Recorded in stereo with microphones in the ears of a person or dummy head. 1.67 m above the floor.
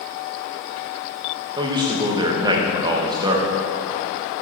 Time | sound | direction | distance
1.6 | a man speaking | 25° right (ahead or behind) | 1.5 m